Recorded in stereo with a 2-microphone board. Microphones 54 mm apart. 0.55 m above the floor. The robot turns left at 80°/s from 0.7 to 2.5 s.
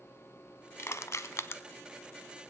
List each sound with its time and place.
0.8 s crushing: 50° left (ahead or behind), 0.7 m; by 1.6 s 45° left (ahead or behind), 0.7 m